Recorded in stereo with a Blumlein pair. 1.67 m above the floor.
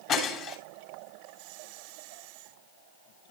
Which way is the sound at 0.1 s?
35° left.